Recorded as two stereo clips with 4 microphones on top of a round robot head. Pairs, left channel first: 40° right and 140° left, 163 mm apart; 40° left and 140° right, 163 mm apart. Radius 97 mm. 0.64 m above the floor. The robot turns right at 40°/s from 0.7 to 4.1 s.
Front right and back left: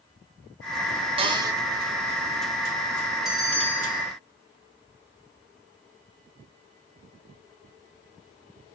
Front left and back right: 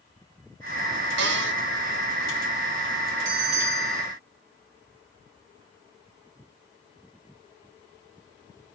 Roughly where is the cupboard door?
Behind.